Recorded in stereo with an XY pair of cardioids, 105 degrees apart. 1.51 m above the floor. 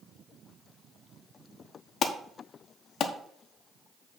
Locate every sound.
2.0 s an alarm: 55° left, 1.0 m